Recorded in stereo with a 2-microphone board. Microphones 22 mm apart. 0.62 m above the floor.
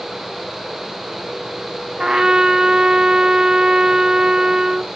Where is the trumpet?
40° right (ahead or behind), 0.5 m.